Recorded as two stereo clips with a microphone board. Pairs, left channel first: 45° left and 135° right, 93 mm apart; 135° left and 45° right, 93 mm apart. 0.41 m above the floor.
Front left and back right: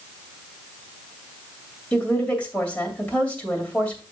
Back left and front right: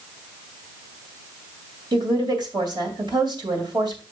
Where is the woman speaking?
25° right, 2 m.